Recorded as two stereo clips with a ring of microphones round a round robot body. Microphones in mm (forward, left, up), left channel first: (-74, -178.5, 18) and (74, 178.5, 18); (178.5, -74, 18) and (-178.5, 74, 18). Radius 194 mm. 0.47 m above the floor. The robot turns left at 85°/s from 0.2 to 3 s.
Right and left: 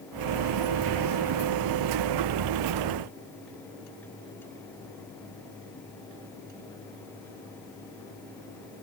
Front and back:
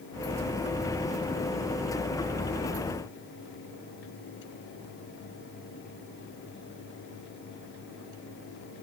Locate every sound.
Only background noise.